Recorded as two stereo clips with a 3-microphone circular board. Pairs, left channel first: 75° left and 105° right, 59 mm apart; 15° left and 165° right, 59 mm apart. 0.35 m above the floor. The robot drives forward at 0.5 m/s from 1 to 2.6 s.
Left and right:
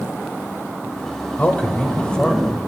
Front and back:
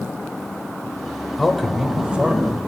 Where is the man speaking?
95° left, 0.9 m; by 2.6 s 145° left, 1.1 m.